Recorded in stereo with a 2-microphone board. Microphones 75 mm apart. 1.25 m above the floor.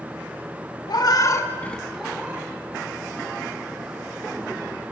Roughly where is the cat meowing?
Left.